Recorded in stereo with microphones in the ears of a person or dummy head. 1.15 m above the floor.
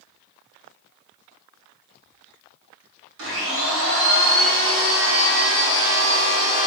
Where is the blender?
60° right (ahead or behind), 1.0 m.